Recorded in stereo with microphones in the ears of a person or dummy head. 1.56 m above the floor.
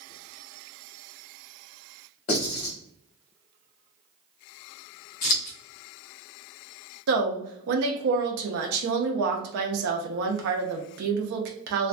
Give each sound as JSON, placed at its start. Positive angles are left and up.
{"t": 2.3, "sound": "writing", "side_deg": 45, "distance_m": 1.4}
{"t": 5.2, "sound": "scissors", "side_deg": 50, "distance_m": 0.9}
{"t": 7.1, "sound": "a woman speaking", "side_deg": -65, "distance_m": 0.6}